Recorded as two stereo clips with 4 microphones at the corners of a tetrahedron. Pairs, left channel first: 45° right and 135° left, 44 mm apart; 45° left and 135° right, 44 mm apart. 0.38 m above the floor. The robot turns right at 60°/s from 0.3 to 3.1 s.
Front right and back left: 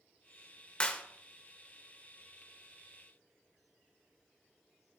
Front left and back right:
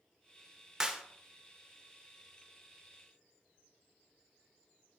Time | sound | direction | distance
0.8 | a clap | 80° right | 0.6 m